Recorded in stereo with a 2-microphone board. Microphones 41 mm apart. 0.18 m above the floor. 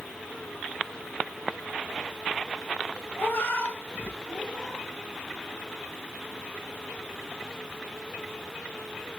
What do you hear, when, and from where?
3.2 s a cat meowing: 70° left (ahead or behind), 1.3 m; by 4.9 s 15° left (ahead or behind), 1.4 m